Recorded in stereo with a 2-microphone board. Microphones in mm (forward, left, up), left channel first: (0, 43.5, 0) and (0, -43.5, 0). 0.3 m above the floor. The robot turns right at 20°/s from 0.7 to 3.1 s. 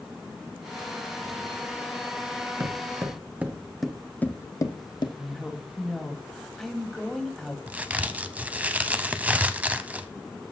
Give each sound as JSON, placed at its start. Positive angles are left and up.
{"t": 2.6, "sound": "footsteps", "side_deg": -50, "distance_m": 1.6}
{"t": 5.2, "sound": "a woman speaking", "side_deg": 5, "distance_m": 1.8}
{"t": 7.7, "sound": "a crack", "side_deg": -15, "distance_m": 0.6}